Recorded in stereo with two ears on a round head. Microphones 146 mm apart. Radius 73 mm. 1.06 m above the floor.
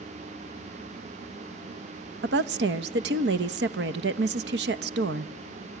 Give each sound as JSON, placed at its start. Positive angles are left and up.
{"t": 2.2, "sound": "a woman speaking", "side_deg": -75, "distance_m": 1.0}